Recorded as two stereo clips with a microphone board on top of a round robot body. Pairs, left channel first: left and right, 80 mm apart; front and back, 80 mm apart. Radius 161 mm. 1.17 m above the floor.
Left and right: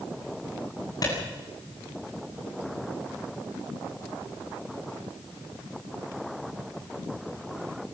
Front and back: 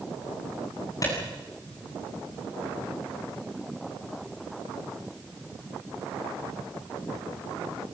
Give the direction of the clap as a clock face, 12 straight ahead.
10 o'clock.